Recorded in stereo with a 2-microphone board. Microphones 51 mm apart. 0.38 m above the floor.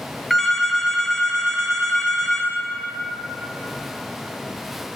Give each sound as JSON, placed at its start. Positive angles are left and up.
{"t": 0.3, "sound": "a phone ringing", "side_deg": 0, "distance_m": 1.7}